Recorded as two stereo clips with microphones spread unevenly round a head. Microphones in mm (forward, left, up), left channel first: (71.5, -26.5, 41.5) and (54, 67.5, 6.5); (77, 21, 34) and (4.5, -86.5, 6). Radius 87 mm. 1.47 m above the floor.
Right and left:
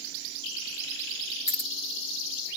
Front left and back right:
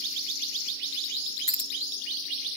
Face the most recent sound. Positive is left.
turn(degrees=-25)